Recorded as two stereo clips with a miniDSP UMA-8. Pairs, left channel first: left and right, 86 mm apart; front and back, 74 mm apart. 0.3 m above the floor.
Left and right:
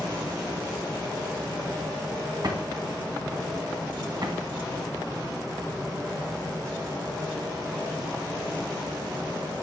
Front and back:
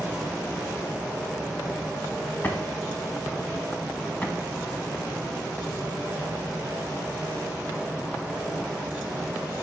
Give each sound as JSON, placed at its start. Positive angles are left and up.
{"t": 2.4, "sound": "a drawer", "azimuth_deg": -65, "distance_m": 1.2}